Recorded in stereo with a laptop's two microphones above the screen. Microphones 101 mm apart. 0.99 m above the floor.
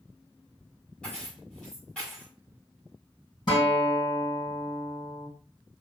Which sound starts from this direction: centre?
Keys jangling, at 1.0 s.